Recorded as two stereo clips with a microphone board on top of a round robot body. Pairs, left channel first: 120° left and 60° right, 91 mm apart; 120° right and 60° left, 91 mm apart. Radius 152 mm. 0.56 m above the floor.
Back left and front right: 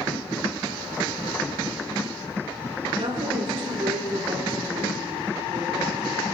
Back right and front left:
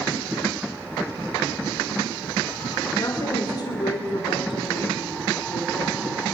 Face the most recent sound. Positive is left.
turn(degrees=-130)